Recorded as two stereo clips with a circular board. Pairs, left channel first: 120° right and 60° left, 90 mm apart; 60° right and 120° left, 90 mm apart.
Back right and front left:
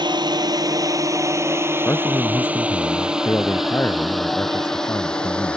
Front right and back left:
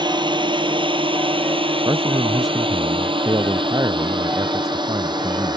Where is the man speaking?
175° left.